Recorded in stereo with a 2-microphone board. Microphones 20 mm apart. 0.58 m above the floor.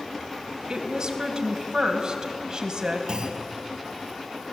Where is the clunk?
50° right (ahead or behind), 2.5 m.